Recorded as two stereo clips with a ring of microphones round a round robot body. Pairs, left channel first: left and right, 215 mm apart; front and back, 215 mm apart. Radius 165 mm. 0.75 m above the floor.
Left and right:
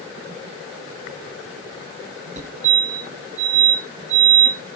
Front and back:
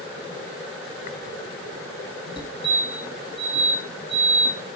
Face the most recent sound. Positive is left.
turn(degrees=-55)